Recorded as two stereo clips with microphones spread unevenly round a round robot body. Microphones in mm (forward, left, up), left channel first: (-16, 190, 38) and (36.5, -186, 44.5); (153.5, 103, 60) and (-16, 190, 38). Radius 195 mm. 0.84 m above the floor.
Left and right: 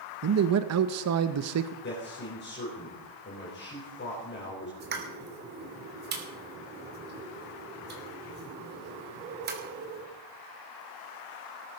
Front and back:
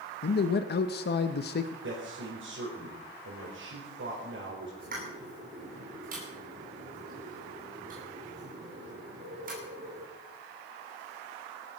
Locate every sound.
0.2 s a man speaking: 45° right, 0.8 m
1.8 s a man speaking: 160° left, 4.5 m
4.8 s a pop: 150° right, 2.5 m